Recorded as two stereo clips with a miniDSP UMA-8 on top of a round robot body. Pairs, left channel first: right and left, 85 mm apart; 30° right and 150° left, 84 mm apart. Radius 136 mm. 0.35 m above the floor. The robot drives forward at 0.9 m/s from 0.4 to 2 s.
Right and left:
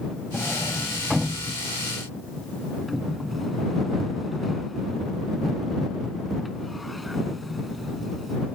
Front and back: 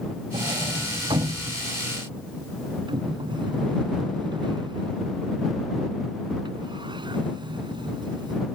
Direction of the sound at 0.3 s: Straight behind.